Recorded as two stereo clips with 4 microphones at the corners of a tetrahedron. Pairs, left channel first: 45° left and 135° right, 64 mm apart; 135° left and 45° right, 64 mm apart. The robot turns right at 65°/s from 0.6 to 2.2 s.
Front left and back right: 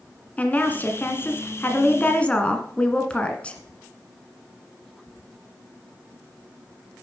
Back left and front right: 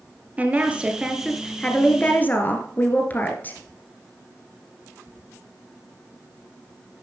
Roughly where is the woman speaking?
Ahead.